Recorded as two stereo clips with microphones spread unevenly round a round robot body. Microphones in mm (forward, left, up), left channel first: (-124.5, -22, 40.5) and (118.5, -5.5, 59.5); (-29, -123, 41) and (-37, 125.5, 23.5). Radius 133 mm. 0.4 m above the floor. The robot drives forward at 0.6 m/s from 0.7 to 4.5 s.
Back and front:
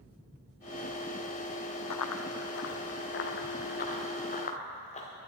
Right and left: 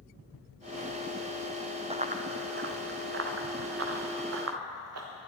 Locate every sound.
1.9 s running footsteps: 160° left, 0.9 m; by 5.1 s 115° left, 3 m